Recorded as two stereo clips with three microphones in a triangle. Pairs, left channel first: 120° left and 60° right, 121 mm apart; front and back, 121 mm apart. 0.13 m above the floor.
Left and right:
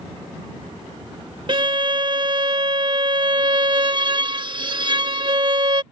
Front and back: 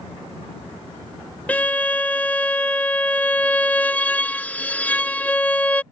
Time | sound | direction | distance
1.5 | a violin | 70° right | ?